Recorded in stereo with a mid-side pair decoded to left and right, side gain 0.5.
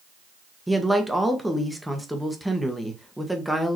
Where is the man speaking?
5° right, 1.1 m.